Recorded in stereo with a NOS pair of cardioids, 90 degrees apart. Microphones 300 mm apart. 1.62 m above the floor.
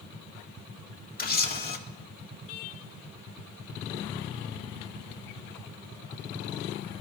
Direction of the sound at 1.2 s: 30° left.